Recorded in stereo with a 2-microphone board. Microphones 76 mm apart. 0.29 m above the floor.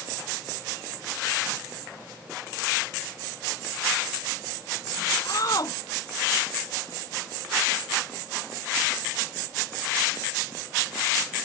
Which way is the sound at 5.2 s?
50° left (ahead or behind).